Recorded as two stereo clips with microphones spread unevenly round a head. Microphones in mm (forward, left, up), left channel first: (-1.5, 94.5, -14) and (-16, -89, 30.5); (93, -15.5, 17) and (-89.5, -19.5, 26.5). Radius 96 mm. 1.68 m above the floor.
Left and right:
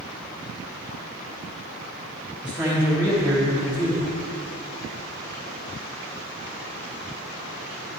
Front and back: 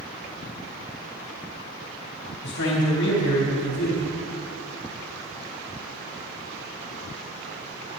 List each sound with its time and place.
2.4 s a man speaking: 10° right, 3.5 m